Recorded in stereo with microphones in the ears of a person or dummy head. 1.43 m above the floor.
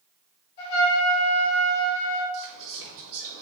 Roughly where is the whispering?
Right.